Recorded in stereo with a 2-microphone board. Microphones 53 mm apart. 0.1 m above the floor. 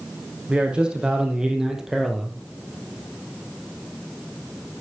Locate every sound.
0.5 s a man speaking: 20° right (ahead or behind), 4.5 m; by 2.4 s centre (ahead or behind), 2 m